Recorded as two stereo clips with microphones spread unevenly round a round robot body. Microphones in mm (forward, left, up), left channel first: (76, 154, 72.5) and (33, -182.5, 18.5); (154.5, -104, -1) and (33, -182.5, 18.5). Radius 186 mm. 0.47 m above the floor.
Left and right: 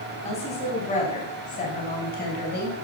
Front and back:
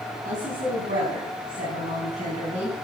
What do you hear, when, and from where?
0.2 s a woman speaking: 160° left, 5 m; by 2.7 s 150° left, 3.5 m